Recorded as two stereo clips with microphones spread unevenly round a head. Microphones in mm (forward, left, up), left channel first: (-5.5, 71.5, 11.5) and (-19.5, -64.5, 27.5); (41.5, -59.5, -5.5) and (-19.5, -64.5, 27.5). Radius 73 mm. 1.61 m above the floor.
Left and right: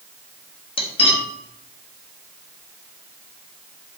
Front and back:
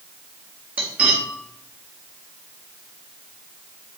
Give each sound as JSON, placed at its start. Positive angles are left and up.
{"t": 0.8, "sound": "cutlery clinking", "azimuth_deg": 135, "distance_m": 1.5}